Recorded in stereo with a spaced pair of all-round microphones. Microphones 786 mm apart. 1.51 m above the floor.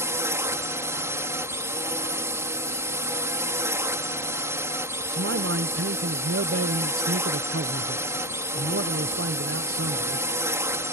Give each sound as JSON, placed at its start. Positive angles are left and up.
{"t": 0.0, "sound": "a drone", "side_deg": -5}
{"t": 5.1, "sound": "a man speaking", "side_deg": -20}